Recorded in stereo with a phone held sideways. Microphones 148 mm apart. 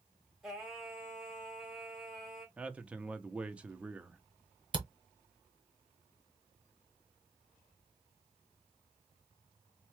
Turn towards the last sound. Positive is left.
turn(degrees=-35)  # may be behind; listen again after turning